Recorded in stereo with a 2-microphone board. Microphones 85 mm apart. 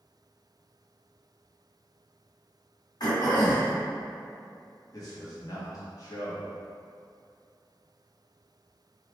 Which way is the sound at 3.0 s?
55° left (ahead or behind).